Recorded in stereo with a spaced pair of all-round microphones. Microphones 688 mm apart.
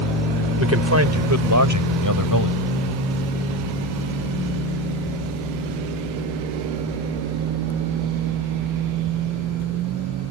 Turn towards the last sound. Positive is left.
turn(degrees=-25)  # may be behind; listen again after turning